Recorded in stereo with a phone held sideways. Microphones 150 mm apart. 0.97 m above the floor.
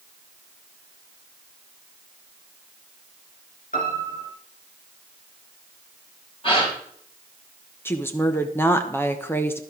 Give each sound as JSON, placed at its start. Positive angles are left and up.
{"t": 3.7, "sound": "a piano", "side_deg": 65, "distance_m": 4.0}
{"t": 6.4, "sound": "a gasp", "side_deg": 35, "distance_m": 4.5}
{"t": 7.8, "sound": "a woman speaking", "side_deg": 15, "distance_m": 0.8}